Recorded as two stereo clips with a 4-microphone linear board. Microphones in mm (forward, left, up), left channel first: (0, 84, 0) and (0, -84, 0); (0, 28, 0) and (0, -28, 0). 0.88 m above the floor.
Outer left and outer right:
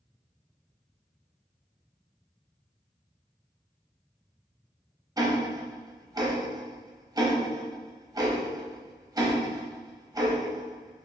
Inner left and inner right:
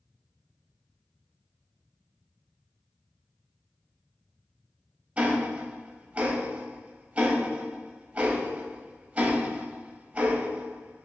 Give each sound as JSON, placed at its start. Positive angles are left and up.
{"t": 5.2, "sound": "ticking", "side_deg": -20, "distance_m": 0.5}